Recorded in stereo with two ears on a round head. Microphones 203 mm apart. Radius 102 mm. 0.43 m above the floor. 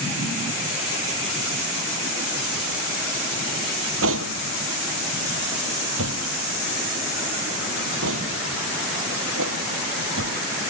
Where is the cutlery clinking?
60° right (ahead or behind).